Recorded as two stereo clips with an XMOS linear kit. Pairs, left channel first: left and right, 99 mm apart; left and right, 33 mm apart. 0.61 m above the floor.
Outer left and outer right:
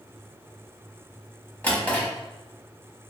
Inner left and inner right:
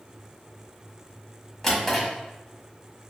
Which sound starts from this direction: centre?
A drawer, at 1.6 s.